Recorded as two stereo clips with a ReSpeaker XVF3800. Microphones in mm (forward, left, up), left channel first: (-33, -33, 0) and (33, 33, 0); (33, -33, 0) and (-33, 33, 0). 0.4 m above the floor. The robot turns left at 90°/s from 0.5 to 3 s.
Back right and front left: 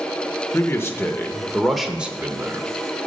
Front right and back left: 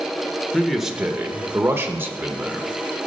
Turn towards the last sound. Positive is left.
turn(degrees=20)